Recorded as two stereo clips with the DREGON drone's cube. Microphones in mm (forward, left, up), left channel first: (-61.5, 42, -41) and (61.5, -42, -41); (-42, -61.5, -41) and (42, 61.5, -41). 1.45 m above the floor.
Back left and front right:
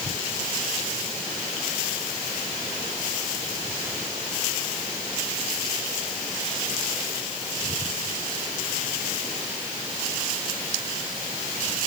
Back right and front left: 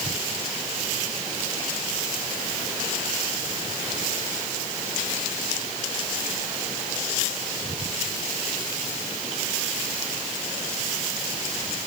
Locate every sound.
Only background noise.